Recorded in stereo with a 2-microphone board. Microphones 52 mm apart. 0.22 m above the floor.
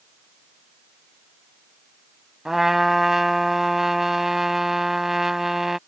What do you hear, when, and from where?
2.5 s a trumpet: 5° right (ahead or behind)